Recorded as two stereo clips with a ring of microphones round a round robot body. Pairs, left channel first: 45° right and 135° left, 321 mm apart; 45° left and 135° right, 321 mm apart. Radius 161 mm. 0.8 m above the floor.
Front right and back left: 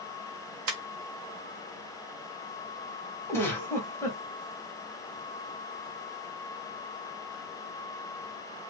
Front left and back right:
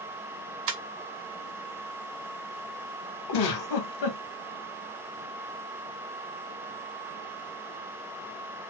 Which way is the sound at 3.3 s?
35° left.